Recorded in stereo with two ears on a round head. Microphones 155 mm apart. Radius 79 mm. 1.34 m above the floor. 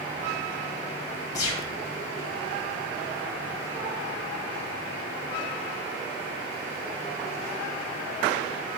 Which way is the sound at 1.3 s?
20° left (ahead or behind).